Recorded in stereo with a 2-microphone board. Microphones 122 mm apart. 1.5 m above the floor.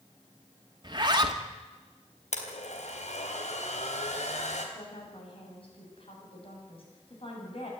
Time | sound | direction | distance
0.8 | a zipper | 35° right (ahead or behind) | 2 m
2.3 | a blender | 70° left (ahead or behind) | 3.5 m
4.8 | a woman speaking | 50° left (ahead or behind) | 8 m